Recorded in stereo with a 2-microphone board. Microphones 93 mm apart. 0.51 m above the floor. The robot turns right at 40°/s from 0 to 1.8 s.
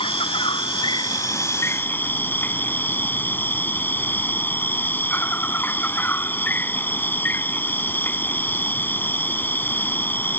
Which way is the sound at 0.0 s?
85° left.